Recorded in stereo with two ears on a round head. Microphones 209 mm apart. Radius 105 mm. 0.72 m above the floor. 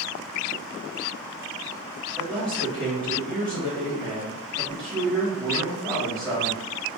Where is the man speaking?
10° left (ahead or behind), 1.6 m.